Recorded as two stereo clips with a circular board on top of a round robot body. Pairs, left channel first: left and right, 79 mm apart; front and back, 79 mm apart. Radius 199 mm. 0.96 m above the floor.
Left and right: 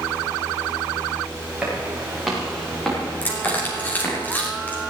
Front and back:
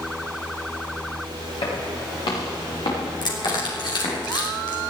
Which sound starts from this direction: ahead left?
Crushing, at 3.2 s.